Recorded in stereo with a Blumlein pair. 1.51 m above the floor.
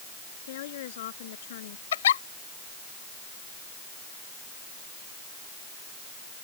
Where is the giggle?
60° left.